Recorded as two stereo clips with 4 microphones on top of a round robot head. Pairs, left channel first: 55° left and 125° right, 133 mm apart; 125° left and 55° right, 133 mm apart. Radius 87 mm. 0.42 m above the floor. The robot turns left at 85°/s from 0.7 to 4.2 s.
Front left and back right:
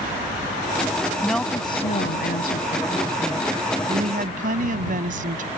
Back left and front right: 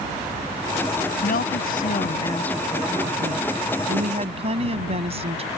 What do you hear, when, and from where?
1.2 s a woman speaking: 150° left; by 5.5 s 100° right